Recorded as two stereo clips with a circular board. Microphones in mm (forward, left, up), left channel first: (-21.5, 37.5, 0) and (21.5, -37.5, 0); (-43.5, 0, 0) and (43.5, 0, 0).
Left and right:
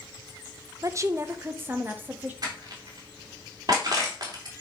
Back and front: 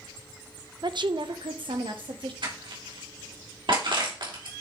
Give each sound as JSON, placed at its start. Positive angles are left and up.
{"t": 0.8, "sound": "a woman speaking", "azimuth_deg": -20, "distance_m": 0.7}
{"t": 2.4, "sound": "crushing", "azimuth_deg": -20, "distance_m": 3.0}